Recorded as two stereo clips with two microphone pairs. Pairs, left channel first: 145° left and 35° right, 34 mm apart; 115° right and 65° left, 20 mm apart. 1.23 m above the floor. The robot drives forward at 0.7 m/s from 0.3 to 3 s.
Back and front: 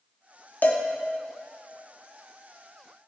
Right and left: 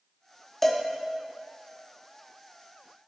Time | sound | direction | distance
0.6 | a cowbell | 165° left | 1.0 m